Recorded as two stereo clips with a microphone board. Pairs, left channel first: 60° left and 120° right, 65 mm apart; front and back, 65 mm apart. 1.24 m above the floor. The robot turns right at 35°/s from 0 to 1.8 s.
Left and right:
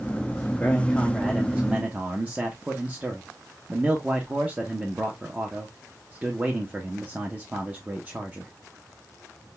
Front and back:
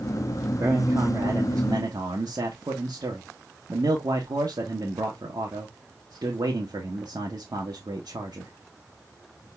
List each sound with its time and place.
0.6 s a man speaking: 130° left, 1.2 m; by 8.5 s 170° left, 1.2 m